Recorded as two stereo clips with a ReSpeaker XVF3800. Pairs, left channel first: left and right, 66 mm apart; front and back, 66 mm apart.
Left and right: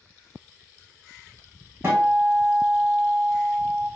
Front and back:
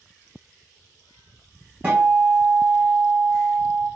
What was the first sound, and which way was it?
A guitar, 130° right.